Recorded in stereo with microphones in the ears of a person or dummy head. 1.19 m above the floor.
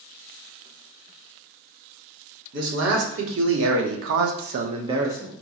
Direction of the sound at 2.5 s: 75° right (ahead or behind).